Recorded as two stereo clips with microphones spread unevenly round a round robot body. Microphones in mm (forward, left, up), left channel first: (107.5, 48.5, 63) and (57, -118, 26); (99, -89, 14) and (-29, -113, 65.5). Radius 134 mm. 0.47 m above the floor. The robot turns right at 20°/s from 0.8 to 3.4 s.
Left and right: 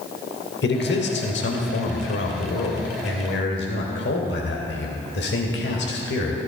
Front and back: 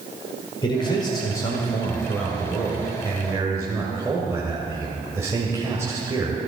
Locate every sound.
0.6 s a man speaking: 55° left, 2 m; by 6.4 s 105° left, 2 m